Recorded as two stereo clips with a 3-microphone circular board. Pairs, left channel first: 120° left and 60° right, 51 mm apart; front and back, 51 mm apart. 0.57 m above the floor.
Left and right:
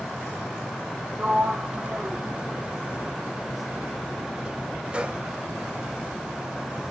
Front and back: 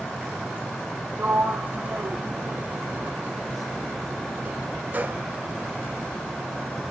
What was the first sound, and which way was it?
A sliding door, 125° right.